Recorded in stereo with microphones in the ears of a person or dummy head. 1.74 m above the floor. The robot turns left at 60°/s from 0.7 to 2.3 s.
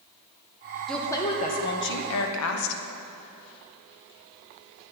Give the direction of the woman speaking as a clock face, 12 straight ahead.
6 o'clock.